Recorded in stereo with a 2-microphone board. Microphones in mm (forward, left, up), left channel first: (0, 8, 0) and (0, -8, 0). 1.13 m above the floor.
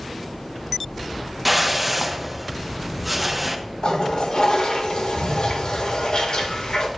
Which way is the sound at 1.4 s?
15° right (ahead or behind).